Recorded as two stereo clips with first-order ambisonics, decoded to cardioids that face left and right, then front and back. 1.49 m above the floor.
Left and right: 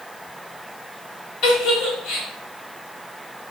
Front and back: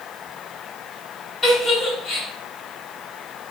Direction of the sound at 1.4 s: 65° left.